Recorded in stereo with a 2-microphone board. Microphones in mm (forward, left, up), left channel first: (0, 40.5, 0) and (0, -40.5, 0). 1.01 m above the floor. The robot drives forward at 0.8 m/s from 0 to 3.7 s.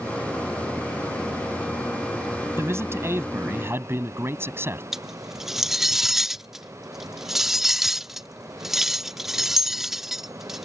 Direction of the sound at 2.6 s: 35° right (ahead or behind).